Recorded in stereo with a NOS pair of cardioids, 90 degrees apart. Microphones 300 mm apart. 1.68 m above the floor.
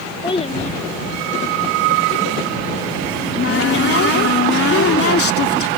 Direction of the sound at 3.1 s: 50° left.